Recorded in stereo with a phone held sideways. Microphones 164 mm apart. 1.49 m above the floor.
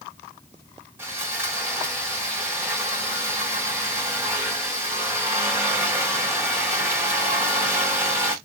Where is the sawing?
15° right (ahead or behind), 1.6 m.